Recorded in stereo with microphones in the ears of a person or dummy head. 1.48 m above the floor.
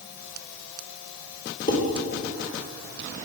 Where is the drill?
I don't hear a drill.